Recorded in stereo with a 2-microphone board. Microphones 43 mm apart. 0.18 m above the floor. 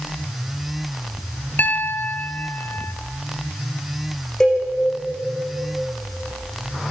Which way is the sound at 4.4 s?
15° left (ahead or behind).